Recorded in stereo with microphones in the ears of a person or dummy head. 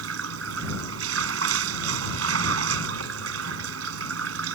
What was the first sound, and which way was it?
Running water, 75° right (ahead or behind).